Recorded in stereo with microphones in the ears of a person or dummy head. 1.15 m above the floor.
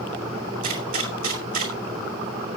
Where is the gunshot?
45° right (ahead or behind), 2 m.